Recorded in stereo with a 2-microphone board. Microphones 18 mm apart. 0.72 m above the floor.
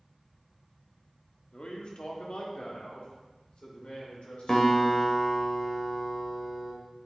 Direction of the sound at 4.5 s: 30° left (ahead or behind).